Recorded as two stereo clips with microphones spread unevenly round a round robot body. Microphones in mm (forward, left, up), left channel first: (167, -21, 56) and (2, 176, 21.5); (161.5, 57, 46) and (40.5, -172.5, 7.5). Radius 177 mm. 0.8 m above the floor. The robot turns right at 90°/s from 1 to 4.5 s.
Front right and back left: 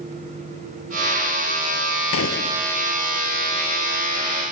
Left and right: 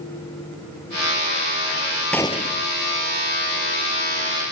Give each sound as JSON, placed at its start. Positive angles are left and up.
{"t": 2.1, "sound": "a gunshot", "azimuth_deg": -25}